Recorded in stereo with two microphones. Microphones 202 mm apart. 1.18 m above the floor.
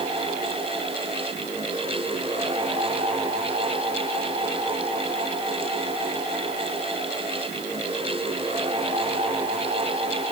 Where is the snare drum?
No snare drum in this recording.